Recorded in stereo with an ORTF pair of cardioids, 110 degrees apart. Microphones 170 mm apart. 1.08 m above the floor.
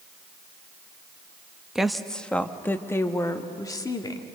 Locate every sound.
1.8 s a woman speaking: 5° right, 1.2 m; by 4.3 s 25° left, 2.5 m